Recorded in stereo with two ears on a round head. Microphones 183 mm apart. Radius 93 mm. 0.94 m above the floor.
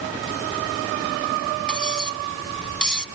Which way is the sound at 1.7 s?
5° left (ahead or behind).